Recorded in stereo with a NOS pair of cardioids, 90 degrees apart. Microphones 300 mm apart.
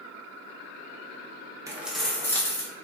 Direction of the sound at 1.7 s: 10° right.